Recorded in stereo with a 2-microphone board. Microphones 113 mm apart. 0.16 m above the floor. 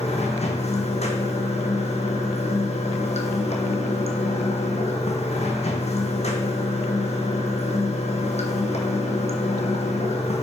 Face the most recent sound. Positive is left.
turn(degrees=75)  # may be behind; listen again after turning